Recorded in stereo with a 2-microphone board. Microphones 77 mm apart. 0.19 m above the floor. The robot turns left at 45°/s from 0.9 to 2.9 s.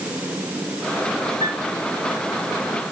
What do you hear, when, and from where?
1.4 s a piano: 75° right (ahead or behind), 6.5 m; by 1.7 s 85° right, 6.5 m